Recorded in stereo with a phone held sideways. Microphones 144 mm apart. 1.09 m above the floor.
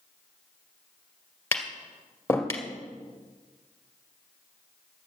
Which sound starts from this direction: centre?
Tapping, at 1.5 s.